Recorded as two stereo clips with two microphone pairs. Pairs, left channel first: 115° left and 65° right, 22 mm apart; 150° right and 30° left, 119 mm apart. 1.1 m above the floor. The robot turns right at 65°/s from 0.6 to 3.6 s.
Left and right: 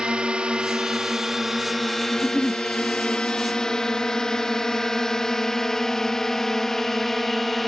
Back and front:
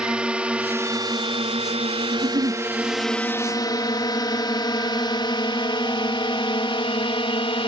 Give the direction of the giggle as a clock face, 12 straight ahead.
11 o'clock.